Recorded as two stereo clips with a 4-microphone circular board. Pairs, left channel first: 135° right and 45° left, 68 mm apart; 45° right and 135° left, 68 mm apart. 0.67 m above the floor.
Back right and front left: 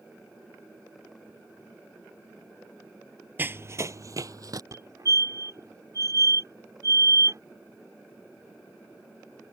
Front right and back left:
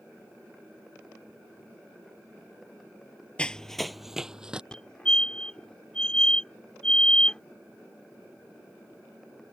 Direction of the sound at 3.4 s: 15° left.